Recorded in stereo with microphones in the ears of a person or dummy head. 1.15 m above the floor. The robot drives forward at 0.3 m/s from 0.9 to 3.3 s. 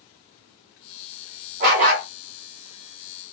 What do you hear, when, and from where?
1.6 s a dog barking: 50° right (ahead or behind), 1.3 m